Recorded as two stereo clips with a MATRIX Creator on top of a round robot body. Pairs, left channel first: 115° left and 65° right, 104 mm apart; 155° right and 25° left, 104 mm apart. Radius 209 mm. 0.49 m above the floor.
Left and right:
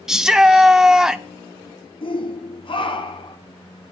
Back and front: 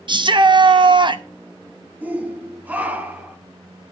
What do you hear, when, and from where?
0.1 s a shout: 15° left, 1.2 m
2.0 s a shout: 95° left, 1.9 m